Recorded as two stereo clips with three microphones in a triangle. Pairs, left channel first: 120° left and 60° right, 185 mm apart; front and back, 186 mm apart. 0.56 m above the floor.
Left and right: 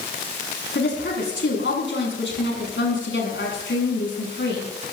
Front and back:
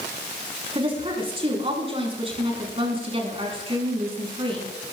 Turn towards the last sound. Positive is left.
turn(degrees=120)